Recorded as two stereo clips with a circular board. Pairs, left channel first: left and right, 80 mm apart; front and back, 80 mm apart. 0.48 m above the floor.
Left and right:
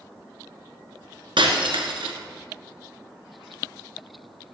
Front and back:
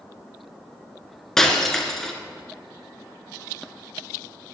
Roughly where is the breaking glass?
Right.